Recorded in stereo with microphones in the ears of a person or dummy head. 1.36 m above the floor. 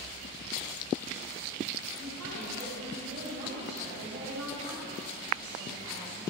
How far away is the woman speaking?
About 4.5 m.